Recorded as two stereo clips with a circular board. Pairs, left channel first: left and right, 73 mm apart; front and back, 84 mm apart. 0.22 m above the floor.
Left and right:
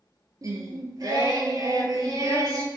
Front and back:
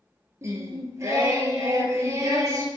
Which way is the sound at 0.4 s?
125° right.